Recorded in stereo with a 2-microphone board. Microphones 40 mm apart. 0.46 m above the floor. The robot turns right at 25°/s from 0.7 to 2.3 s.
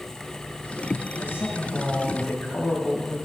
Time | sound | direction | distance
1.2 | a man speaking | 75° left (ahead or behind) | 2.5 m